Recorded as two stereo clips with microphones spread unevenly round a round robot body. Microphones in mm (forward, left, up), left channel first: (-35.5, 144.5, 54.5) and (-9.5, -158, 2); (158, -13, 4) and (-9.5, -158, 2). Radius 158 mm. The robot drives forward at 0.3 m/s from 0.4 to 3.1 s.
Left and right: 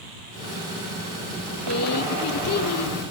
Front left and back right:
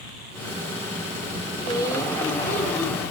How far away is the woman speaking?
About 1.7 m.